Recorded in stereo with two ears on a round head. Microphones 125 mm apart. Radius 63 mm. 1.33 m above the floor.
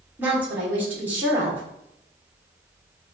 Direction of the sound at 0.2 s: 10° right (ahead or behind).